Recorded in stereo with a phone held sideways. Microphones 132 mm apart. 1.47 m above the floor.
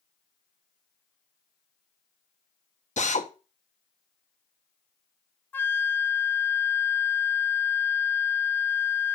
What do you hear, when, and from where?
3.0 s a drill: 65° left (ahead or behind), 1.2 m
5.5 s a flute: 15° left (ahead or behind), 0.5 m